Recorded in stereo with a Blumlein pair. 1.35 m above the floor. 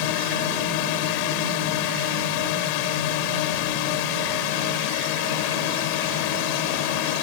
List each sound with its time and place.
0.0 s a drone: 45° left